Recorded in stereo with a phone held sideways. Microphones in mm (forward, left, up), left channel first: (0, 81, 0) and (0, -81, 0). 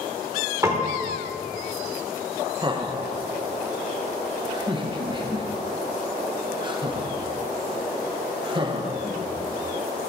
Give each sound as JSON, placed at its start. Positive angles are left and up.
{"t": 0.6, "sound": "a piano", "side_deg": -20, "distance_m": 1.5}
{"t": 2.6, "sound": "laughter", "side_deg": -30, "distance_m": 1.0}